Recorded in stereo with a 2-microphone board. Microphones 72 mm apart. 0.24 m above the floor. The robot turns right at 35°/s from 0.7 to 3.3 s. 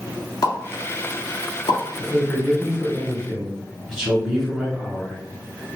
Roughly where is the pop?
Left.